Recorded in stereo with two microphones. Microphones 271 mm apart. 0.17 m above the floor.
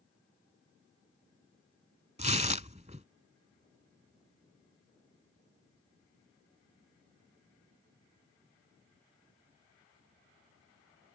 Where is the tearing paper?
25° right (ahead or behind).